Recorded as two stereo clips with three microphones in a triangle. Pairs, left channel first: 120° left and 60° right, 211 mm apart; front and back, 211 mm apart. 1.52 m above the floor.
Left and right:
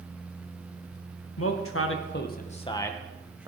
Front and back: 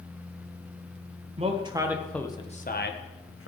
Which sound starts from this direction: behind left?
A man speaking, at 1.4 s.